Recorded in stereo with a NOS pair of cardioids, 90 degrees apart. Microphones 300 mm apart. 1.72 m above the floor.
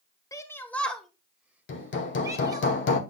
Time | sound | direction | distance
0.3 | a shout | 10° left | 1.5 m
1.7 | hammering | 40° left | 1.3 m